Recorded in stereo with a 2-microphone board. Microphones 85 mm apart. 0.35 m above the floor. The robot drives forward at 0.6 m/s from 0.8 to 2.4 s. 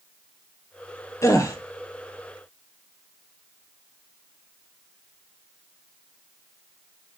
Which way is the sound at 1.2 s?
35° left (ahead or behind).